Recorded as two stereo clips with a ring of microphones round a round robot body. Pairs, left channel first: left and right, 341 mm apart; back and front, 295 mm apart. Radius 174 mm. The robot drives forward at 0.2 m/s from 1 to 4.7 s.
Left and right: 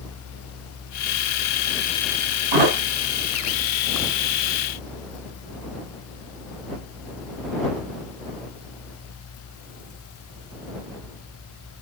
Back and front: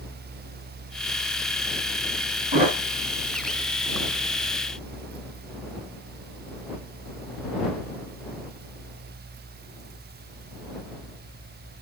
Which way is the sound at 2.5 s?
75° right.